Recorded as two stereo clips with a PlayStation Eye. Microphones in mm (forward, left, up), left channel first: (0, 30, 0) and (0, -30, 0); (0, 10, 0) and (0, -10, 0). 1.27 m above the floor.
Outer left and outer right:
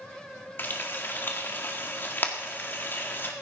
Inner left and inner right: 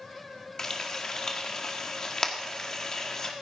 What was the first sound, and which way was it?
Frying, 35° left (ahead or behind).